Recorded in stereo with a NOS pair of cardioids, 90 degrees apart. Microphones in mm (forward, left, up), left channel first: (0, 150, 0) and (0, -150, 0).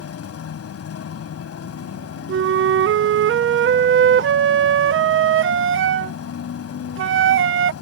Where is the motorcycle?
60° left.